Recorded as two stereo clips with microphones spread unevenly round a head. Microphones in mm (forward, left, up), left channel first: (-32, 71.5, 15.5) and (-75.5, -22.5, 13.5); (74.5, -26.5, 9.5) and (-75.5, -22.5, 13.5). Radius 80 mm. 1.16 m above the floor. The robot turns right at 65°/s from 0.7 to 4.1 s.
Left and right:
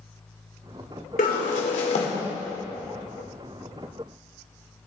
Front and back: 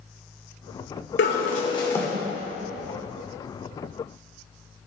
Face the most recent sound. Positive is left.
turn(degrees=-145)